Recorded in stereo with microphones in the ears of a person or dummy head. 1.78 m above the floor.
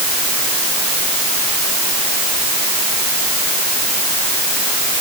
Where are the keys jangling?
I don't hear keys jangling.